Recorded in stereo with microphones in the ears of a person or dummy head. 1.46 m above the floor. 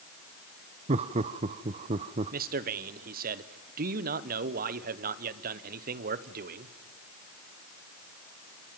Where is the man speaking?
45° right (ahead or behind), 0.9 m.